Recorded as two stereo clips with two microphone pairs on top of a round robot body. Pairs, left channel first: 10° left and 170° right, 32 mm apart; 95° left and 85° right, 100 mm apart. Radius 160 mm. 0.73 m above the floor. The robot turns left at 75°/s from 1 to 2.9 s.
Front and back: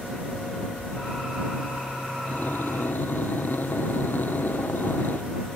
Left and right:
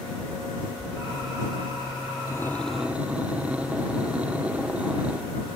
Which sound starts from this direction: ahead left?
Breathing, at 2.3 s.